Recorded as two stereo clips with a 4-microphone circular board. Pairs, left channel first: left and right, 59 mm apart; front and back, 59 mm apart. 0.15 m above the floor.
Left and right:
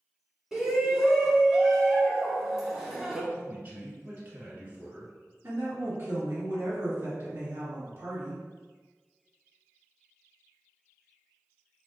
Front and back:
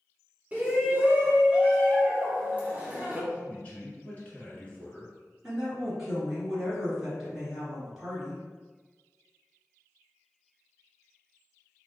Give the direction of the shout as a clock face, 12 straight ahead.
5 o'clock.